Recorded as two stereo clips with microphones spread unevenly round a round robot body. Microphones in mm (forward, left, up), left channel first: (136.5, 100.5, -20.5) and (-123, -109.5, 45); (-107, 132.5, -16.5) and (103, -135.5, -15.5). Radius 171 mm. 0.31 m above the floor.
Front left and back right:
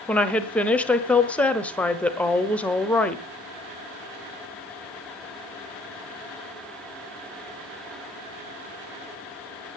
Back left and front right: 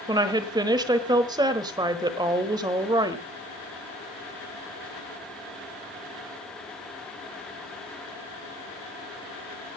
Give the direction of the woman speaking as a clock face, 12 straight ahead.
12 o'clock.